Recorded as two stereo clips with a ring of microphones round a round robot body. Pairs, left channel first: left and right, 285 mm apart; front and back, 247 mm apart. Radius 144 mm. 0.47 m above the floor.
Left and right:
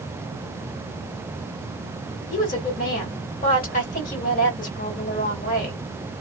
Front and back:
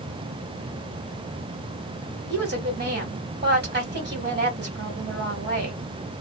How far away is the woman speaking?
About 1.9 m.